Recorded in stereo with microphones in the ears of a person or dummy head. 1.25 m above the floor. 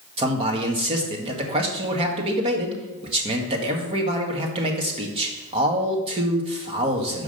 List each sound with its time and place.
0.2 s a man speaking: 25° right (ahead or behind), 1.6 m